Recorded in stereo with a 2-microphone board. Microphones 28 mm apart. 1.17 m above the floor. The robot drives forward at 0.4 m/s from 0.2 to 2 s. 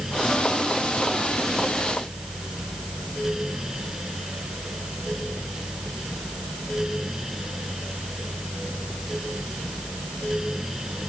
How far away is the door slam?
No door slam in this recording.